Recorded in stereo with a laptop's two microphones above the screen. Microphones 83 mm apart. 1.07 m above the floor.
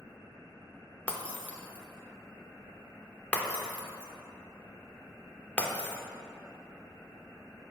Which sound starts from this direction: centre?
Breaking glass, at 1.1 s.